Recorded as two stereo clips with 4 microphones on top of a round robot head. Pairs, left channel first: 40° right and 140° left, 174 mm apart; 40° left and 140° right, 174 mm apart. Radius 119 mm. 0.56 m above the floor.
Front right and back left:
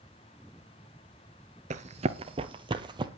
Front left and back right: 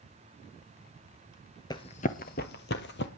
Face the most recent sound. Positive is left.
turn(degrees=75)